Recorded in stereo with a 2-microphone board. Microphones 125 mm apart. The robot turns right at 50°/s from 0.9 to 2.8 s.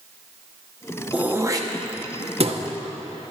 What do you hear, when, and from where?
1.1 s throat clearing: 10° right (ahead or behind), 0.9 m; by 2.6 s 60° right (ahead or behind), 0.9 m